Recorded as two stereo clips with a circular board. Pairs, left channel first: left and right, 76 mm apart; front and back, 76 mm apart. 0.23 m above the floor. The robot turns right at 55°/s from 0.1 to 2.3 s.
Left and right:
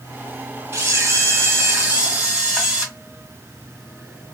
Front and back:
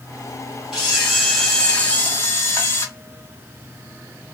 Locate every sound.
0.7 s a camera shutter: 105° right, 1.2 m; by 2.9 s 20° right, 1.2 m